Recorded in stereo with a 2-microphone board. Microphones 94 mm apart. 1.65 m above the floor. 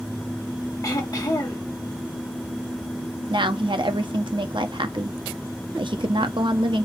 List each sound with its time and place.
0.8 s throat clearing: 40° left (ahead or behind), 1.6 m
3.3 s a woman speaking: 60° right (ahead or behind), 0.8 m